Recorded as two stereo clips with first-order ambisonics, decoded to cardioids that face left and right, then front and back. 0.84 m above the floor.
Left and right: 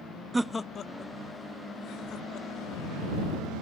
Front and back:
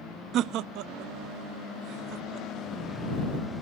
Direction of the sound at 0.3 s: 160° right.